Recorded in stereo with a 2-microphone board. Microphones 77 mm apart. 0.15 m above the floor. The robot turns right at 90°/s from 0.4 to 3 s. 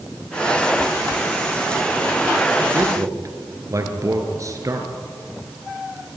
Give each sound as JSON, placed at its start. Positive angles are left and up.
{"t": 2.7, "sound": "a man speaking", "side_deg": -25, "distance_m": 3.0}